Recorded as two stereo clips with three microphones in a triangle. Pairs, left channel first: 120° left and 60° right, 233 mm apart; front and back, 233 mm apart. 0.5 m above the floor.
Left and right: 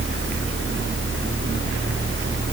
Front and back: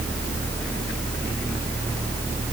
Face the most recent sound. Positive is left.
No sound to turn to.